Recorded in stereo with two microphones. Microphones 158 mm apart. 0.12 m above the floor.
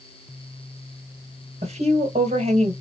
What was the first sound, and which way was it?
A woman speaking, 40° right (ahead or behind).